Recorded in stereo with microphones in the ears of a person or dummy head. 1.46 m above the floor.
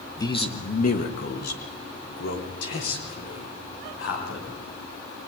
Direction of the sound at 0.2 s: 20° left (ahead or behind).